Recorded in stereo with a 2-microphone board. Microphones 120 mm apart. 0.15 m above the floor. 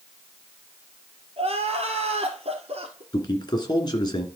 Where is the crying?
55° right (ahead or behind), 2 m.